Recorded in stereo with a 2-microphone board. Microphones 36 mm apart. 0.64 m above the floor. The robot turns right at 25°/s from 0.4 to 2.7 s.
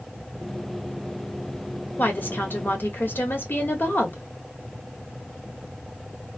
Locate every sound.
2.0 s a woman speaking: 60° left (ahead or behind), 1.1 m; by 4.2 s 65° left (ahead or behind), 1.1 m